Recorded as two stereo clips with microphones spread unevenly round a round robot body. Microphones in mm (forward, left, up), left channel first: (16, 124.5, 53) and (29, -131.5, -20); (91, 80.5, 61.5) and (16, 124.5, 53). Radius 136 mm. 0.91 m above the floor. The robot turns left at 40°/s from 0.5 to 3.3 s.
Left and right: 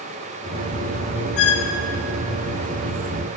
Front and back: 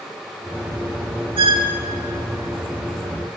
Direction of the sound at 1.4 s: 135° left.